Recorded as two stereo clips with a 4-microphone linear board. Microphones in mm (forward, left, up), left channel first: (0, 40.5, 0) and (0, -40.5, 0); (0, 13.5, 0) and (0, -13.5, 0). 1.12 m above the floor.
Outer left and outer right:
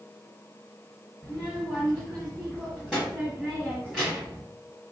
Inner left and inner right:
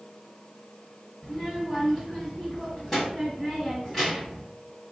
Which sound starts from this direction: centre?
A child speaking, at 1.2 s.